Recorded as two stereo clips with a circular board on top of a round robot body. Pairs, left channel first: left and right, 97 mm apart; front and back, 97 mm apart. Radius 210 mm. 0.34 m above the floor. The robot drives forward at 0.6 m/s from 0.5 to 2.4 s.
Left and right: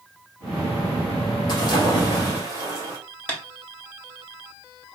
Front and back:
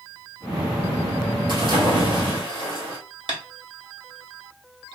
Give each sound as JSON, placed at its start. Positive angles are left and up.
{"t": 1.5, "sound": "a splash", "azimuth_deg": 140, "distance_m": 1.8}
{"t": 3.3, "sound": "tapping", "azimuth_deg": 160, "distance_m": 1.4}